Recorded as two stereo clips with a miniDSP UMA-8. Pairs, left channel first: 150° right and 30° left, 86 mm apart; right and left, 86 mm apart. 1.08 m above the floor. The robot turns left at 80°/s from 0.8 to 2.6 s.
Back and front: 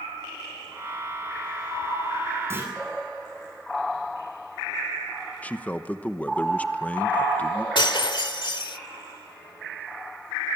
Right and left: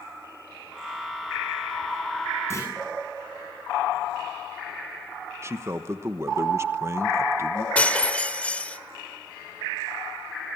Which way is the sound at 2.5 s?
30° right.